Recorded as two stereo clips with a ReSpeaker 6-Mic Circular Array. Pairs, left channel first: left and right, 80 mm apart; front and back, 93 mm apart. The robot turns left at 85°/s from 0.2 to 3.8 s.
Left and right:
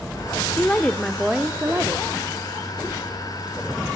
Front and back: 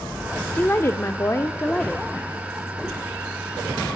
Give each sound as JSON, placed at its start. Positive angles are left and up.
{"t": 0.6, "sound": "a woman speaking", "azimuth_deg": 45, "distance_m": 1.5}